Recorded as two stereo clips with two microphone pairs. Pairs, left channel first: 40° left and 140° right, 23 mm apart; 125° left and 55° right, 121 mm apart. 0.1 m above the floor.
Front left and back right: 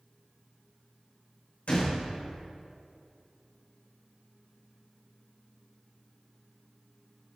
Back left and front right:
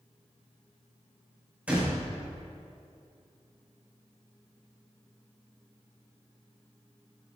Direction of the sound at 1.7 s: 20° left.